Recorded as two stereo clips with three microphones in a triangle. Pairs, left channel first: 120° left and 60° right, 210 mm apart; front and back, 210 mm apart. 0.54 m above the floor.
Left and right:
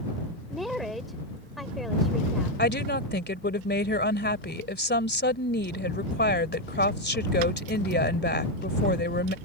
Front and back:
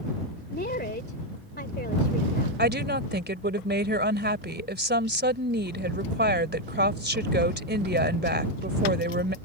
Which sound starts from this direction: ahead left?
A woman speaking, at 0.5 s.